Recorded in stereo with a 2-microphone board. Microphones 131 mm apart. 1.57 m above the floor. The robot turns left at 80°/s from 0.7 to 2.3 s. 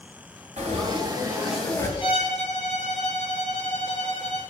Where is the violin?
40° left (ahead or behind), 3.5 m; by 4.4 s 65° left (ahead or behind), 3.5 m.